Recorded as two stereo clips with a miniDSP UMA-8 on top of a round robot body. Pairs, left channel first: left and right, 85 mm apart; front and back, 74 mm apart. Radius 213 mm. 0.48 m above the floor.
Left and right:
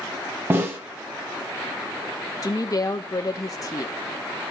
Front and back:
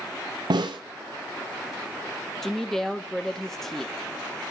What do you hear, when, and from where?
0.5 s a snare drum: 155° right, 0.8 m
2.4 s a woman speaking: 85° left, 0.9 m